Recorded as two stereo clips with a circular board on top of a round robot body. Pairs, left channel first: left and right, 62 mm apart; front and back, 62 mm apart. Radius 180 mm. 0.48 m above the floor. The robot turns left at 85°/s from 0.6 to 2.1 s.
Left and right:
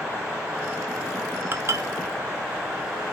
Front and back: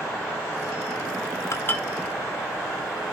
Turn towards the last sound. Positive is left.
turn(degrees=-90)